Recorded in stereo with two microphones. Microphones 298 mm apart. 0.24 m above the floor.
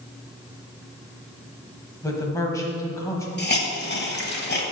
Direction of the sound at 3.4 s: 35° left (ahead or behind).